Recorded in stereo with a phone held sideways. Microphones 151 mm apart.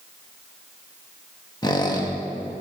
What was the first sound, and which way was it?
A squeak, 30° left (ahead or behind).